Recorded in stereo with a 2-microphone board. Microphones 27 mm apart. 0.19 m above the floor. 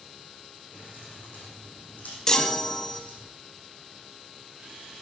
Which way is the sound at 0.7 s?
60° left (ahead or behind).